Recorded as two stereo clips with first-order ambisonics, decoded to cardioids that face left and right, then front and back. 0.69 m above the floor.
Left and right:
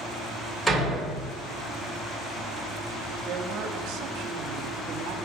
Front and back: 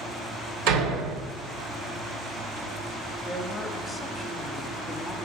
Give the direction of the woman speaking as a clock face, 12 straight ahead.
3 o'clock.